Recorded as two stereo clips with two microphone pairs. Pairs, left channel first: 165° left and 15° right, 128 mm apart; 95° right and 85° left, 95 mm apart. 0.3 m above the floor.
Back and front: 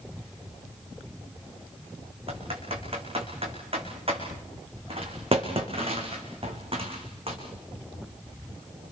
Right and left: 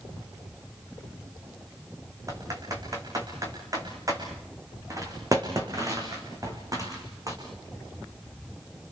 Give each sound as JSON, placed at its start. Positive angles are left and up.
{"t": 2.3, "sound": "typing on a keyboard", "azimuth_deg": 30, "distance_m": 5.0}